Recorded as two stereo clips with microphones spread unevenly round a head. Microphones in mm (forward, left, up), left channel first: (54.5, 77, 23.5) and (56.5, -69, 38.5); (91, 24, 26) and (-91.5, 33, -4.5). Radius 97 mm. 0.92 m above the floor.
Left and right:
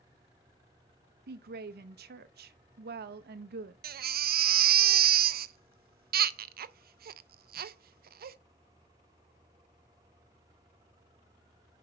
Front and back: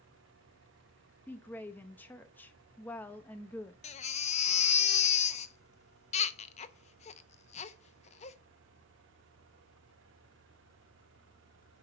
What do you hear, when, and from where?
1.3 s a woman speaking: 90° right, 0.8 m
3.8 s a baby crying: 65° right, 0.5 m